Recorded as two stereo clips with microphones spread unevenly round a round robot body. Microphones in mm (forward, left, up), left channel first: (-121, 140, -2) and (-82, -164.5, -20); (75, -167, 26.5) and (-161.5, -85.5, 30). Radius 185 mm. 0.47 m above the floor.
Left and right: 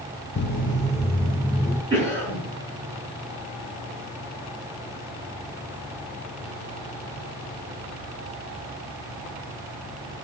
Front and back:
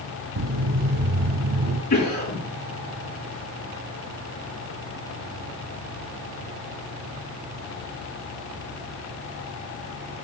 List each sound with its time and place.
0.4 s footsteps: 150° left, 0.9 m; by 1.8 s 175° left, 2.5 m
1.9 s a cough: 15° left, 6 m